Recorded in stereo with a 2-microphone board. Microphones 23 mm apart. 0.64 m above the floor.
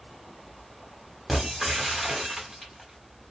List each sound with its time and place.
1.3 s breaking glass: 5° right (ahead or behind), 1.4 m